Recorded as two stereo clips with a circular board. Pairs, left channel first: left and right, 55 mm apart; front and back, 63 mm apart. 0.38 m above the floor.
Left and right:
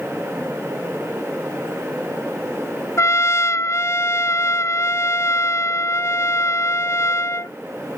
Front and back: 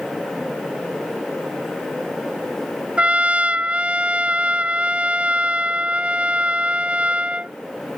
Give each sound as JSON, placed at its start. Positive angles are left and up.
{"t": 3.0, "sound": "a trumpet", "azimuth_deg": 110}